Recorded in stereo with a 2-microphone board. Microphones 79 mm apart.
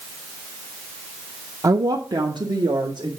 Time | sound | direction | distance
1.6 | a woman speaking | 45° right (ahead or behind) | 0.5 m